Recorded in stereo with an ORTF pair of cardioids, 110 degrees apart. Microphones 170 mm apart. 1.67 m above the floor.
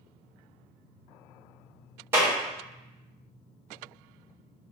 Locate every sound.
2.1 s a clap: 15° right, 1.3 m